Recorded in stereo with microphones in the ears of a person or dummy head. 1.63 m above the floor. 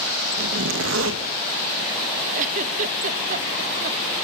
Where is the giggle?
45° right (ahead or behind), 1.0 m.